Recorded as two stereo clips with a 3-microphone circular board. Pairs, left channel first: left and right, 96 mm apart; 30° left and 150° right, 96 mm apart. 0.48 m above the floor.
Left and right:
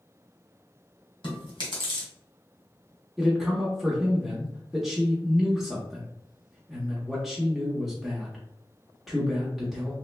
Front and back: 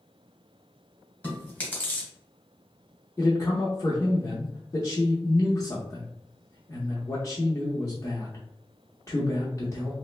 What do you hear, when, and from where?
1.2 s chewing: 100° left, 1.5 m
3.2 s a man speaking: straight ahead, 0.8 m